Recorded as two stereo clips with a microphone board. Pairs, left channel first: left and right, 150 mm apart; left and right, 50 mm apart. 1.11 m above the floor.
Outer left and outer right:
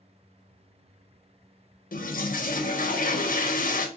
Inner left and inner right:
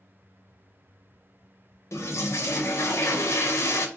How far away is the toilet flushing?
About 0.6 m.